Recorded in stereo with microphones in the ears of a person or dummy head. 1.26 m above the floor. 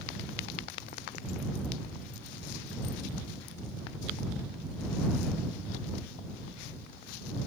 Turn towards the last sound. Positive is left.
No sound to turn to.